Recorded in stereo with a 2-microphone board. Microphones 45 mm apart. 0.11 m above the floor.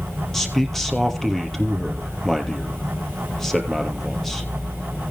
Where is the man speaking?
5° left (ahead or behind), 2.5 m.